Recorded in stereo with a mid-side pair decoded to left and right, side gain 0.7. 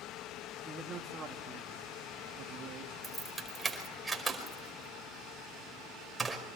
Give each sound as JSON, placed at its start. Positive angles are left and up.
{"t": 0.7, "sound": "a man speaking", "azimuth_deg": -20, "distance_m": 3.0}
{"t": 3.0, "sound": "keys jangling", "azimuth_deg": -15, "distance_m": 5.0}